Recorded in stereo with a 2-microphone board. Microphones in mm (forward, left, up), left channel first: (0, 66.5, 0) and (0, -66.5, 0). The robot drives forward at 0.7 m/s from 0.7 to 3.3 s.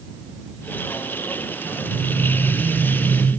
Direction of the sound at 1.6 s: 55° right (ahead or behind).